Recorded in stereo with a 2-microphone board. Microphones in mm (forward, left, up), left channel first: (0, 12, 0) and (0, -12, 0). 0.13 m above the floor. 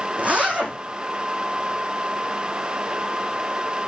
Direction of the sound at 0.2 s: 80° right.